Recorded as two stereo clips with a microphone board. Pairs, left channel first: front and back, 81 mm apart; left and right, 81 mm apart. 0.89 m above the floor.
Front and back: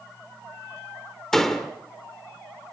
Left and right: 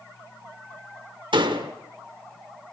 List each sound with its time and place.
1.3 s a door slam: 85° right, 1.7 m